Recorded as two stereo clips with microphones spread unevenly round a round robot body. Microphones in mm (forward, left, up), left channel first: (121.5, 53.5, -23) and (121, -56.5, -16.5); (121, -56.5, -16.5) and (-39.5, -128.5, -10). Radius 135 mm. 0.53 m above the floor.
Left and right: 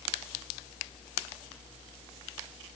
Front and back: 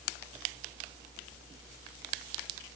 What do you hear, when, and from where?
Only background noise.